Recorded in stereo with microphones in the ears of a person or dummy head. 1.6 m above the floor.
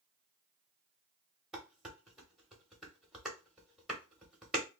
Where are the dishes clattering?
Centre (ahead or behind), 0.9 m.